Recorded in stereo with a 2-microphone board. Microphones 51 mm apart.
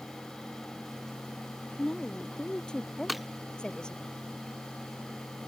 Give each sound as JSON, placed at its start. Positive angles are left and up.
{"t": 1.8, "sound": "a woman speaking", "side_deg": 15}
{"t": 3.1, "sound": "breaking glass", "side_deg": -5}